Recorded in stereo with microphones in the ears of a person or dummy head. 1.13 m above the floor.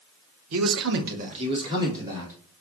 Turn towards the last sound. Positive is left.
turn(degrees=-15)  # may be behind; listen again after turning